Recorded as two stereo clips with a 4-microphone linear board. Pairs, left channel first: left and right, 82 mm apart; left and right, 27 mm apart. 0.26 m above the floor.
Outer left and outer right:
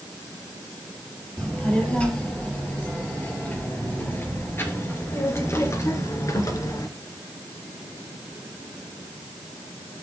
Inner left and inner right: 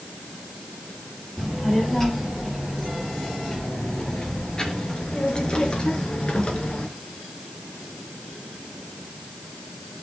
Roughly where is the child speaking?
Centre.